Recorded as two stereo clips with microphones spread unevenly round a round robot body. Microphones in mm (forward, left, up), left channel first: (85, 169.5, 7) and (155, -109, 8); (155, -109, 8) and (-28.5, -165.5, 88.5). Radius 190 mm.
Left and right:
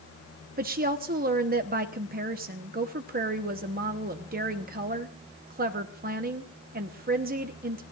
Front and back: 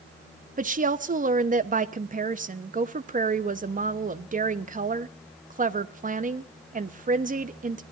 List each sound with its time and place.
0.6 s a woman speaking: 105° right, 0.9 m